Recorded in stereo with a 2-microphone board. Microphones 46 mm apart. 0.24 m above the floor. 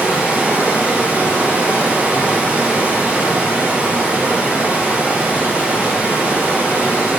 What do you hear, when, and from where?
0.0 s running water: 30° right (ahead or behind), 3 m